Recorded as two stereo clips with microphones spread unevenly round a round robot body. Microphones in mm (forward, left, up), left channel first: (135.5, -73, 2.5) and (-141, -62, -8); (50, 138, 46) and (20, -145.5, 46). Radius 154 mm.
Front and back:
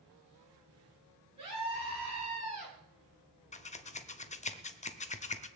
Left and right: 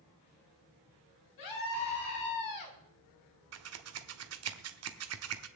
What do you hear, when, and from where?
1.4 s a scream: 105° left, 5.5 m
3.5 s scissors: 70° right, 1.2 m